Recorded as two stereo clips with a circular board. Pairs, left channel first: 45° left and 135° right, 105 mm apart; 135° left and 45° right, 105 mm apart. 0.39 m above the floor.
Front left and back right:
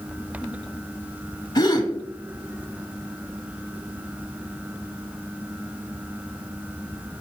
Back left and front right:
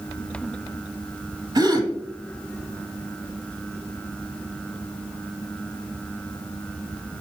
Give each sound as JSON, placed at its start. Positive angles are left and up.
{"t": 1.6, "sound": "a gasp", "azimuth_deg": -5, "distance_m": 1.3}